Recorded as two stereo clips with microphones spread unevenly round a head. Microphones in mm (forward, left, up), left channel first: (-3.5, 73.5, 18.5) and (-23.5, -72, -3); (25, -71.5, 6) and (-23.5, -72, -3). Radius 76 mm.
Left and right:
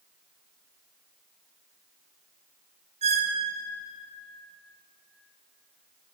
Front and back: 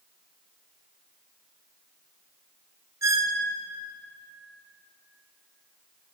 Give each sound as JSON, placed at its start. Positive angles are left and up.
{"t": 3.0, "sound": "a squeak", "azimuth_deg": -150, "distance_m": 0.6}